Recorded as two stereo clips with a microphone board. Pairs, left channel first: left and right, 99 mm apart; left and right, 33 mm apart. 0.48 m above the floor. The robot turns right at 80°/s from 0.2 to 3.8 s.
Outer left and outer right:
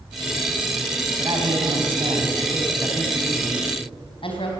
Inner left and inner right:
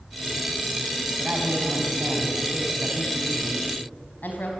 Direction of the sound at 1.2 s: 140° right.